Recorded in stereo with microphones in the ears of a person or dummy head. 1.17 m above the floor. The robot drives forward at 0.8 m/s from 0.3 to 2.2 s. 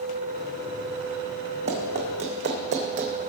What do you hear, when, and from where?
1.7 s running footsteps: 30° right (ahead or behind), 2.5 m; by 3.1 s 40° right (ahead or behind), 2 m